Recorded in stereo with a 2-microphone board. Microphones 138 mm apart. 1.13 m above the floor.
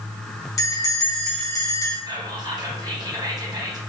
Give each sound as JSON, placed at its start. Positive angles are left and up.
{"t": 0.6, "sound": "a bell", "side_deg": 25, "distance_m": 0.9}
{"t": 2.1, "sound": "whispering", "side_deg": -30, "distance_m": 0.9}